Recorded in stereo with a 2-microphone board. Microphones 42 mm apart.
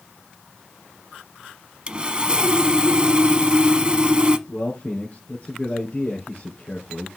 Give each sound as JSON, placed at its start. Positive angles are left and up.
{"t": 1.9, "sound": "sawing", "side_deg": -25, "distance_m": 0.8}
{"t": 4.5, "sound": "a man speaking", "side_deg": 45, "distance_m": 3.0}